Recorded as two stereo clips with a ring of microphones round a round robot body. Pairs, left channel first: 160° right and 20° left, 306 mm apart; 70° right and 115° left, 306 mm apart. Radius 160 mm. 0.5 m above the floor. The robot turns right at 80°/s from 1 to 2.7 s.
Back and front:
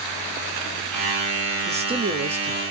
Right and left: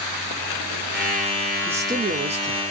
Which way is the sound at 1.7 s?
40° left.